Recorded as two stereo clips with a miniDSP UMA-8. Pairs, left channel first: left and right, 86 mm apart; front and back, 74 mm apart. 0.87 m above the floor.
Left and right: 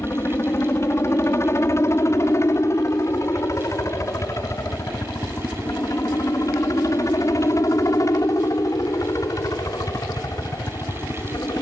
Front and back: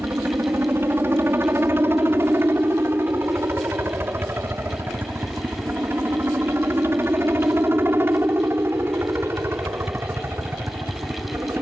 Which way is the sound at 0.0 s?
135° left.